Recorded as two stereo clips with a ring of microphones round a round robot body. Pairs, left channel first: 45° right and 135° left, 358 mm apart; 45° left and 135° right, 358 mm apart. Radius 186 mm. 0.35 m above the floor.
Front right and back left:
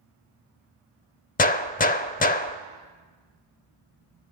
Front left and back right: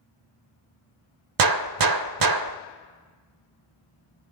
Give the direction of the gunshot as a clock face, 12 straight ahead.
4 o'clock.